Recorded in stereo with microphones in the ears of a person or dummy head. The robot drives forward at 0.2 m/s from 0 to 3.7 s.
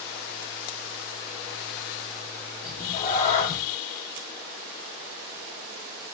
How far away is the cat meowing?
About 0.7 m.